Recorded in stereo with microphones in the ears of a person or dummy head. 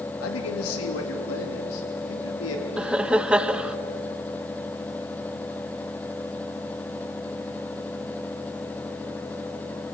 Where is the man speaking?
80° left, 2.5 m; by 2.7 s 85° left, 4.5 m.